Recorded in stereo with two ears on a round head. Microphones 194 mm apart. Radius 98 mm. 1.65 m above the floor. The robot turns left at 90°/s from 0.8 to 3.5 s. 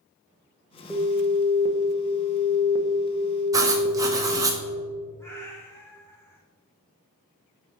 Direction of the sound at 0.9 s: 170° right.